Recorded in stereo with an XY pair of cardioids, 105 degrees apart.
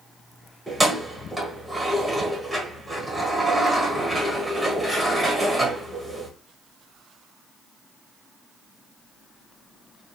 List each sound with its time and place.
0.7 s keys jangling: 5° right, 1.3 m